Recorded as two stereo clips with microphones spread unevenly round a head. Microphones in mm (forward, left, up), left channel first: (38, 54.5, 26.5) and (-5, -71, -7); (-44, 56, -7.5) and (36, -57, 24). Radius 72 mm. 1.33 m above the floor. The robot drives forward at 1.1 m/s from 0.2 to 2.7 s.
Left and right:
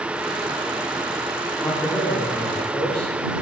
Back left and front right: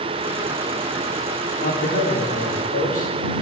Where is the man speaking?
150° left, 4 m; by 3.1 s 155° left, 5 m.